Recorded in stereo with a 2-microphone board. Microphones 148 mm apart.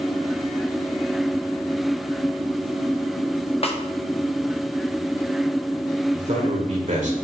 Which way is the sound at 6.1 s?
55° right (ahead or behind).